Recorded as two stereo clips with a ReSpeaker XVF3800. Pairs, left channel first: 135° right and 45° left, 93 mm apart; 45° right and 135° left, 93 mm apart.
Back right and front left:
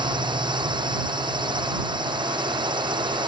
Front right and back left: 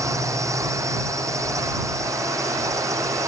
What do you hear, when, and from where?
0.0 s a drone: 80° left